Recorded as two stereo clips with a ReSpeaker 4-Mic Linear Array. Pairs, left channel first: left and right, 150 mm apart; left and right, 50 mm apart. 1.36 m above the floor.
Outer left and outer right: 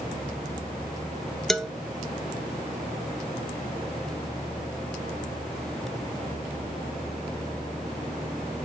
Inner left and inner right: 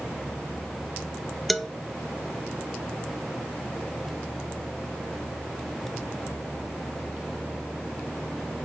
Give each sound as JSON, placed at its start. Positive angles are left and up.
{"t": 1.5, "sound": "a man speaking", "side_deg": 5, "distance_m": 0.6}